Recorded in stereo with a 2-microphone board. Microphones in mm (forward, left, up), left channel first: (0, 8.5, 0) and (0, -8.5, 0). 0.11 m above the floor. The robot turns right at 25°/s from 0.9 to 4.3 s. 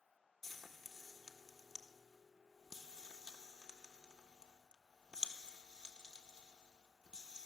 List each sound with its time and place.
0.4 s frying: 10° left (ahead or behind), 1.2 m; by 7.5 s 65° right (ahead or behind), 1.2 m